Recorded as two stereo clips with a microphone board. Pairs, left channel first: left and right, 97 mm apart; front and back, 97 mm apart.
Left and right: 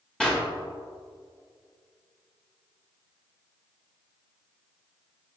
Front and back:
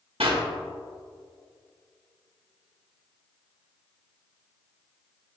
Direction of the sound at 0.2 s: 170° left.